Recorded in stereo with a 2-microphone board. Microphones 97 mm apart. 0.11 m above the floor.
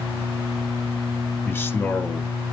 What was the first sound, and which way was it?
A man speaking, 20° left (ahead or behind).